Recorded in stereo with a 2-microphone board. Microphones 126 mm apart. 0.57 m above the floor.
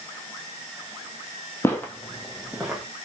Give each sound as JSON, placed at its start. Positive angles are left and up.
{"t": 1.6, "sound": "footsteps", "side_deg": 20, "distance_m": 0.8}